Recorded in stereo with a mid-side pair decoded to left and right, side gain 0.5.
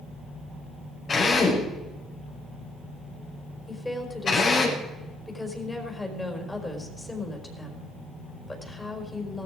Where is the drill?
45° left, 5 m.